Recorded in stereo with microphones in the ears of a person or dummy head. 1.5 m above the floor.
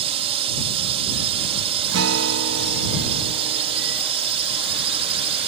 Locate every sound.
0.0 s a drone: 35° right (ahead or behind)
1.9 s a guitar: 75° right (ahead or behind)